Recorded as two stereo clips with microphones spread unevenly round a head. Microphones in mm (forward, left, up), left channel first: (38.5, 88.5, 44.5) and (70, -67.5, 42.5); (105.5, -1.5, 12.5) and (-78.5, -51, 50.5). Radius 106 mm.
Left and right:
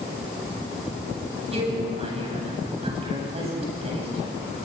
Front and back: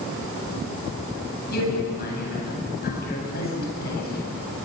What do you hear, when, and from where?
1.5 s a man speaking: 25° right, 9 m